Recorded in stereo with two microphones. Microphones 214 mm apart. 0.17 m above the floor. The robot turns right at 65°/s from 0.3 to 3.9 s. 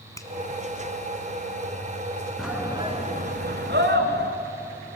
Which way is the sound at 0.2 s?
15° left (ahead or behind).